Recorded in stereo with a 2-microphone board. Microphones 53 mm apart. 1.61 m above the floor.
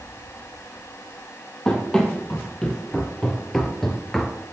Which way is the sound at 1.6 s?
10° left (ahead or behind).